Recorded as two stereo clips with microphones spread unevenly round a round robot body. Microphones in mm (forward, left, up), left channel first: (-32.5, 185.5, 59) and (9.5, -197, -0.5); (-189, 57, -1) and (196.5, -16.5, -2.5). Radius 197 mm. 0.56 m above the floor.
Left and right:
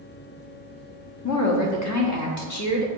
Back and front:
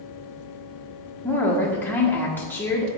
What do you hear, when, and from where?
1.2 s a woman speaking: 90° left, 1.2 m